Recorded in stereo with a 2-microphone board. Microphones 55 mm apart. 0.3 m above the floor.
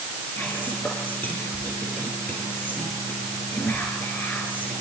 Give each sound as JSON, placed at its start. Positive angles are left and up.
{"t": 0.4, "sound": "whispering", "side_deg": 30, "distance_m": 5.5}